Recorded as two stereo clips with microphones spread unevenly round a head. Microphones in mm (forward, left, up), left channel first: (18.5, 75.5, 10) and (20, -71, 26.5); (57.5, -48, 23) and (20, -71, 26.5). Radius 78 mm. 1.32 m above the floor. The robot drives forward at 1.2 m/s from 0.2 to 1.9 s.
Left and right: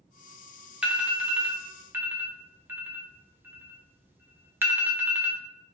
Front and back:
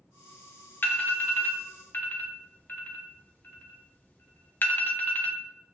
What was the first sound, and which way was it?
An alarm, 5° right.